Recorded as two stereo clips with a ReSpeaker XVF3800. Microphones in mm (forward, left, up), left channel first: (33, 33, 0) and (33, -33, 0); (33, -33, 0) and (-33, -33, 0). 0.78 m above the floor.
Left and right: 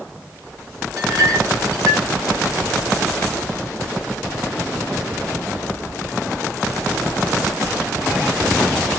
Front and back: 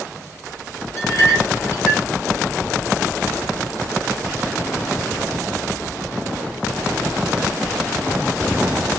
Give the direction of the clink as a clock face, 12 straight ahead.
2 o'clock.